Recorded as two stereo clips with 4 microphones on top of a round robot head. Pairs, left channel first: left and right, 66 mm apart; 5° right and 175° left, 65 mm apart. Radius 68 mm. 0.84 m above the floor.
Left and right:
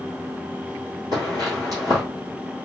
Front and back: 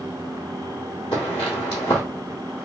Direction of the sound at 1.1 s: 40° right.